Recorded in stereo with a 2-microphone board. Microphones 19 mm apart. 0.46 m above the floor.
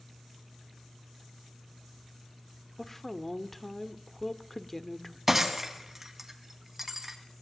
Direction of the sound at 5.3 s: 15° right (ahead or behind).